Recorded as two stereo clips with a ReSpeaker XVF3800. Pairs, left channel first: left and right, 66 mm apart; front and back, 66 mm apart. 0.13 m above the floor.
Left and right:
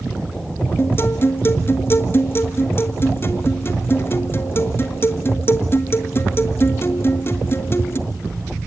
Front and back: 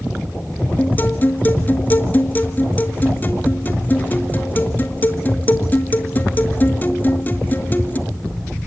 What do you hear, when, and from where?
0.8 s a guitar: 50° left, 1.4 m